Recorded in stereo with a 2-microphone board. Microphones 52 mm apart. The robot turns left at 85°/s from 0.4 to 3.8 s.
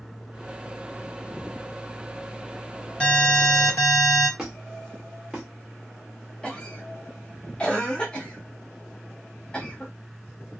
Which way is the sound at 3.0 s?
155° left.